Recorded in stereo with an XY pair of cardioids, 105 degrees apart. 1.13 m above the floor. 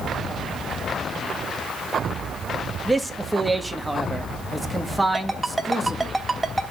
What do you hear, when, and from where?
2.9 s a man speaking: 5° right, 1.4 m
5.1 s a ringtone: 10° right, 2.5 m